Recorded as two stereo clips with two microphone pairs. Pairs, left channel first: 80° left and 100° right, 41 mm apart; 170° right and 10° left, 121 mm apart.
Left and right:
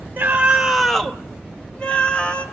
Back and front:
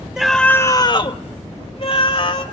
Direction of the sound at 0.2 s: 70° right.